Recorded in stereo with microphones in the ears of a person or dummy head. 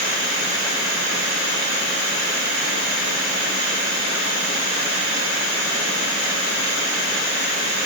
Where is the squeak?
I don't hear a squeak.